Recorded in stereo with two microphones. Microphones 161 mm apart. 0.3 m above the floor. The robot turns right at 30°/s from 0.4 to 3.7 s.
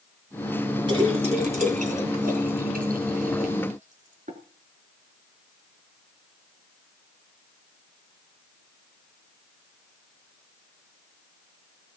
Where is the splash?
30° right (ahead or behind), 4 m; by 4.4 s 55° right (ahead or behind), 4 m.